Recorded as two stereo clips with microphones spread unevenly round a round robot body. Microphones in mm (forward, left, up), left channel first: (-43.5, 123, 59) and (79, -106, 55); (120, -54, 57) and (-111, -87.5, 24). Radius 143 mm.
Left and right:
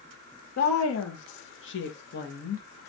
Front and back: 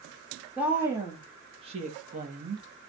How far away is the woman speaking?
About 1.4 m.